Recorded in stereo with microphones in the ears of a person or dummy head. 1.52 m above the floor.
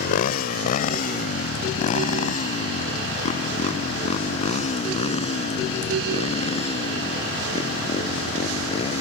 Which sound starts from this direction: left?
A motorcycle, at 0.0 s.